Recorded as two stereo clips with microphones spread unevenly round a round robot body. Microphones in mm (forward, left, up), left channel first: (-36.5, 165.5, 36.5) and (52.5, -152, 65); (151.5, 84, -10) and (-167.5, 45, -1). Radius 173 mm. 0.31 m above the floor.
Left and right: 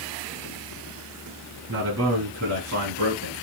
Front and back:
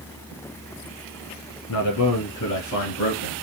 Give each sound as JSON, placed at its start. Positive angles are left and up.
{"t": 1.7, "sound": "a man speaking", "azimuth_deg": -25, "distance_m": 2.5}